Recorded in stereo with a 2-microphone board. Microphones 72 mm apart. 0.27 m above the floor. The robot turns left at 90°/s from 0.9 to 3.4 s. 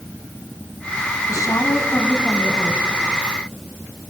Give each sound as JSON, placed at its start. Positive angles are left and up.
{"t": 1.3, "sound": "a woman speaking", "azimuth_deg": 105, "distance_m": 1.8}